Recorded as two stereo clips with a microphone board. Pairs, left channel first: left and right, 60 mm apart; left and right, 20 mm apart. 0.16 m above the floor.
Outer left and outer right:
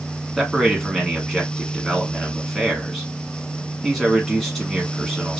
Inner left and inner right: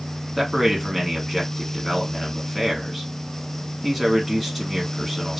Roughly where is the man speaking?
Centre.